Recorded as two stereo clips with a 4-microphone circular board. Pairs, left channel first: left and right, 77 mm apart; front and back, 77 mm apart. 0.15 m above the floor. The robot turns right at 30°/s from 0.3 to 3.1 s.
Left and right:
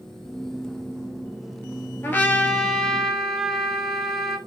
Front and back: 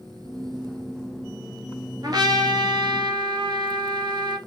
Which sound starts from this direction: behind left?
A trumpet, at 2.0 s.